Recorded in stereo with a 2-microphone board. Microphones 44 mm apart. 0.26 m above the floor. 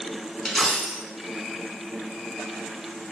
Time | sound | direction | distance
0.5 | a dropped coin | 5° left (ahead or behind) | 0.5 m